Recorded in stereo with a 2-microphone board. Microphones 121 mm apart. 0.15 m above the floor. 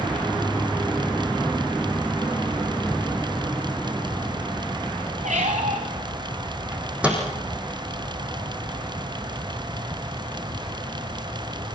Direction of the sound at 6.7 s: 10° right (ahead or behind).